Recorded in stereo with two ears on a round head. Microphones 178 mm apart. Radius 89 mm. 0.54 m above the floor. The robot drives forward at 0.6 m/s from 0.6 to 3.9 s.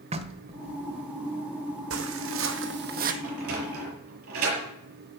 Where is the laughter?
I don't hear laughter.